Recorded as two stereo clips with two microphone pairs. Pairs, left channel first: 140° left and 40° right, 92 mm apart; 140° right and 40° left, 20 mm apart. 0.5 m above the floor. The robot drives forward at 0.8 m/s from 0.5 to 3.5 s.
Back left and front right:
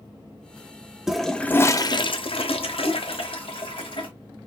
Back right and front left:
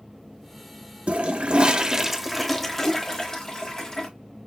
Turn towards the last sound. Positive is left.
turn(degrees=155)